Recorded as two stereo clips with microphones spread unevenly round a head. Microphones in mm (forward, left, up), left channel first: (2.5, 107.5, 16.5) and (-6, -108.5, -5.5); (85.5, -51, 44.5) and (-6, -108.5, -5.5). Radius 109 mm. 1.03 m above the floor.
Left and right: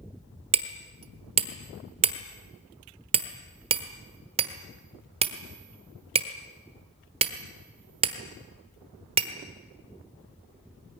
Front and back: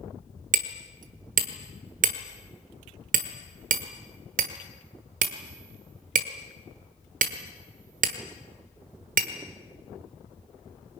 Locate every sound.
0.5 s hammering: 160° right, 1.2 m